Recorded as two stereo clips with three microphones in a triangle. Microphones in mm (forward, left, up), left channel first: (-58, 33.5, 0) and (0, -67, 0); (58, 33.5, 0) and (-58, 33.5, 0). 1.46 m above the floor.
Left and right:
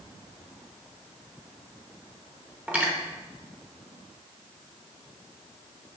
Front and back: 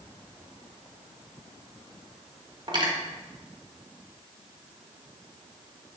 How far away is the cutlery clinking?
About 1.2 m.